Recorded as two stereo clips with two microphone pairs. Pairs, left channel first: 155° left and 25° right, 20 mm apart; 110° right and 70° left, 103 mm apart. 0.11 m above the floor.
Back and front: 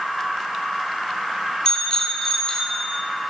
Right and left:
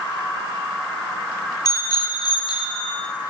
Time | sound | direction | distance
1.6 | a bicycle bell | 155° right | 2 m